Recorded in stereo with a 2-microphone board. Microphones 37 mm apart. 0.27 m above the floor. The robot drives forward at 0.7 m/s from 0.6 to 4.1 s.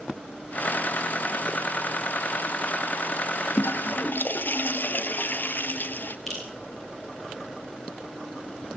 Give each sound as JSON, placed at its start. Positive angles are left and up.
{"t": 3.6, "sound": "a toilet flushing", "side_deg": 80, "distance_m": 0.8}
{"t": 6.3, "sound": "dripping", "side_deg": 5, "distance_m": 9.0}